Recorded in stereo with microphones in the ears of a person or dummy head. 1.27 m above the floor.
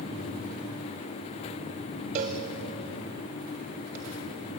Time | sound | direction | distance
2.1 | a cowbell | 30° right (ahead or behind) | 1.2 m